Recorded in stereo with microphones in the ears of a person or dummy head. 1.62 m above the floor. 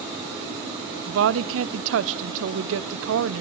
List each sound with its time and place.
1.1 s a woman speaking: 80° right, 0.8 m